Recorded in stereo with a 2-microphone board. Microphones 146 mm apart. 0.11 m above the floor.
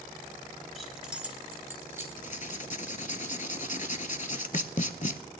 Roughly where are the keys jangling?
Centre.